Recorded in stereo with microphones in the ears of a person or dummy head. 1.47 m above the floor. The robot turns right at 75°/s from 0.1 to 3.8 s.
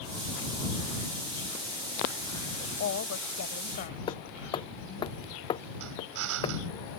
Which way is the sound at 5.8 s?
80° right.